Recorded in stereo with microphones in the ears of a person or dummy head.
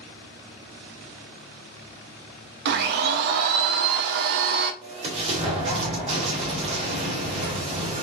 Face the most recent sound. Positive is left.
turn(degrees=-40)  # may be behind; listen again after turning